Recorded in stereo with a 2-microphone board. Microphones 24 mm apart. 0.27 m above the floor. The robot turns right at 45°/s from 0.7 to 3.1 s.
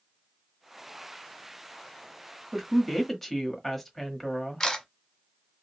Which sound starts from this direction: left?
A camera shutter, at 4.6 s.